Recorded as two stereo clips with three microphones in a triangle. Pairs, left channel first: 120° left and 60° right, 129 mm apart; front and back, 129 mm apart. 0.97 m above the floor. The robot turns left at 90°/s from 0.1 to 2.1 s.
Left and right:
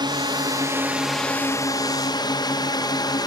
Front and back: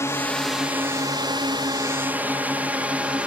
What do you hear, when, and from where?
0.0 s a drone: 55° right; by 3.3 s 105° left